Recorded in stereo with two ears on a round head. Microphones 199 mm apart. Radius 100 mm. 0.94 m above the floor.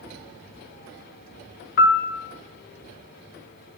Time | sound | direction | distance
1.8 | a piano | 50° left (ahead or behind) | 0.7 m